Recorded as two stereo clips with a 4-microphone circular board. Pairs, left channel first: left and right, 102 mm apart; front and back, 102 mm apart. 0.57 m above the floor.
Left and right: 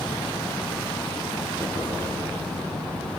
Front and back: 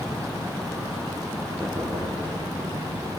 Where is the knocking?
75° right, 8.5 m.